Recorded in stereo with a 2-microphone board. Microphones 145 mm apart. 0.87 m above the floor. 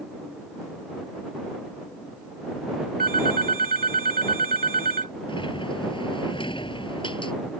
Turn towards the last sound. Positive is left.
turn(degrees=35)  # may be behind; listen again after turning